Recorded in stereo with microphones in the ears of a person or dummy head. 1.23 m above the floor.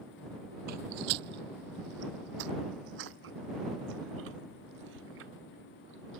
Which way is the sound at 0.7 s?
50° right (ahead or behind).